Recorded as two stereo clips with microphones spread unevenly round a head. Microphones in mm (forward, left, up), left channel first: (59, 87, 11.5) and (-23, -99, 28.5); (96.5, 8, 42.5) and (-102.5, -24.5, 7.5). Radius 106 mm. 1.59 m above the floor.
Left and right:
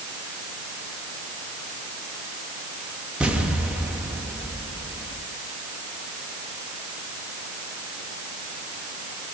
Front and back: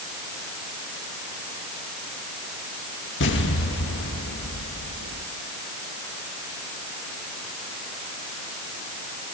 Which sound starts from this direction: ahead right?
An explosion, at 3.2 s.